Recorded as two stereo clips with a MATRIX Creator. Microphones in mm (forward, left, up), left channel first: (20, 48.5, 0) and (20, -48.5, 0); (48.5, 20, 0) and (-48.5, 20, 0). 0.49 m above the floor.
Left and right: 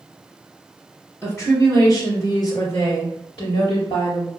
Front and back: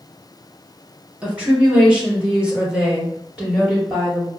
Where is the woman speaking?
115° left, 1.4 m; by 4.3 s 100° left, 3 m.